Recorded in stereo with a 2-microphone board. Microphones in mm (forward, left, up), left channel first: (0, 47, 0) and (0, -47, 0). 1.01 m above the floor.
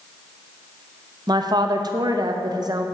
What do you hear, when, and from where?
1.3 s a woman speaking: 45° right (ahead or behind), 0.6 m